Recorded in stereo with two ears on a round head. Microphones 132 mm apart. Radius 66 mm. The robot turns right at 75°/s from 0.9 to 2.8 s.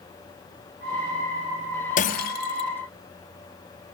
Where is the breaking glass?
60° left, 2.0 m; by 2.7 s 115° left, 2.0 m.